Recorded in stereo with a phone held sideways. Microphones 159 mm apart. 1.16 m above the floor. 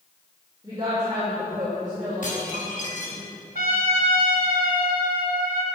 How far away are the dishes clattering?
About 4.5 m.